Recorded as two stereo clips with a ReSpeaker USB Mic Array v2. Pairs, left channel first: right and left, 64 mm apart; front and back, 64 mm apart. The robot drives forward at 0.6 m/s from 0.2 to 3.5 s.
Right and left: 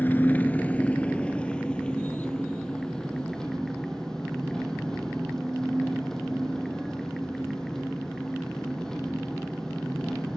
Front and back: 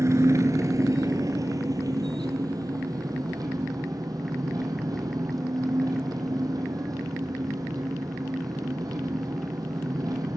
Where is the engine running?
150° right, 1.0 m; by 10.4 s 170° right, 3 m.